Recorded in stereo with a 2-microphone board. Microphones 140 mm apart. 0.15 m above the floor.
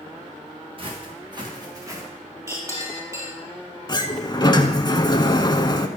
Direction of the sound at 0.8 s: 40° right (ahead or behind).